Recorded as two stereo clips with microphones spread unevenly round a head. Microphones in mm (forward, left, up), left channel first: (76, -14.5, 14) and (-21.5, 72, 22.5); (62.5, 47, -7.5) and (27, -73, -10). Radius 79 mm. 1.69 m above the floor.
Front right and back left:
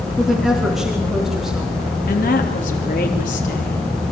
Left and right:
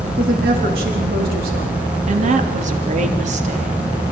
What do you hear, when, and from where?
0.2 s a woman speaking: 130° right, 4 m
2.1 s a woman speaking: 85° right, 3 m